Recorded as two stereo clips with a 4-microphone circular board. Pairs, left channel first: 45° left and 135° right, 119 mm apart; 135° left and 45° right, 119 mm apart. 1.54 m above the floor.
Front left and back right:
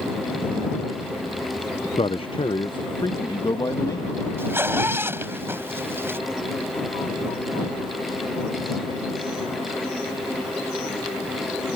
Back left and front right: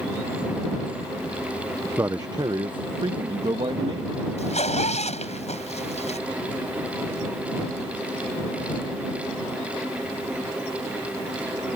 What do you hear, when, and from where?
2.0 s a man speaking: 20° left; by 4.2 s 10° right
4.4 s a zipper: 155° left